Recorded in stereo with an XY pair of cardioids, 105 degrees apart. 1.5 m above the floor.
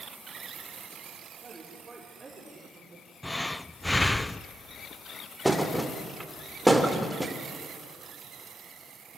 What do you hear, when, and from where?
1.4 s a woman speaking: 20° right, 6 m; by 3.1 s 30° right, 6 m
3.2 s breathing: 10° left, 0.5 m
5.5 s a thud: 5° right, 2.5 m